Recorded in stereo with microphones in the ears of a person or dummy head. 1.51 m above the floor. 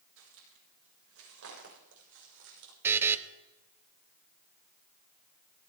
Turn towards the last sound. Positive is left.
turn(degrees=-15)  # may be behind; listen again after turning